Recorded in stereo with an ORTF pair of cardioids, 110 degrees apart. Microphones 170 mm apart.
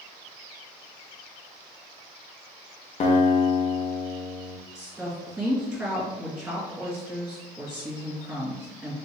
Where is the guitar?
45° left, 0.7 m.